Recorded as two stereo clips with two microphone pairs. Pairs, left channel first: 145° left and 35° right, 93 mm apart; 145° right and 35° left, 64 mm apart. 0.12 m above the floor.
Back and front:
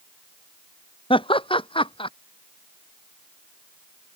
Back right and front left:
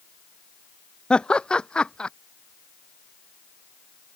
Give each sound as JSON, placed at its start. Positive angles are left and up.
{"t": 1.1, "sound": "laughter", "azimuth_deg": 140}